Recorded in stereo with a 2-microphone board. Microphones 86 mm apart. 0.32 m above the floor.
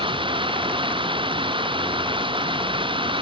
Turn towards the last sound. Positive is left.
turn(degrees=-75)  # may be behind; listen again after turning